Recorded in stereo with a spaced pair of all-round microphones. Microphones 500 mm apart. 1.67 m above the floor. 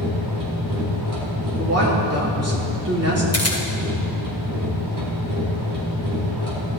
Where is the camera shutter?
30° left (ahead or behind), 1.8 m.